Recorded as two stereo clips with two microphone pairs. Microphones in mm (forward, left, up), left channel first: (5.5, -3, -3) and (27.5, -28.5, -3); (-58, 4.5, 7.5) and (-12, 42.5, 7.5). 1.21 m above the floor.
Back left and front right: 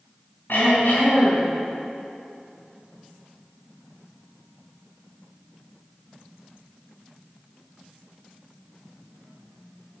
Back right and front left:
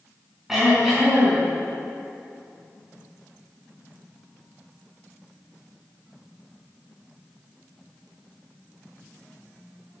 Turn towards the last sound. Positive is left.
turn(degrees=125)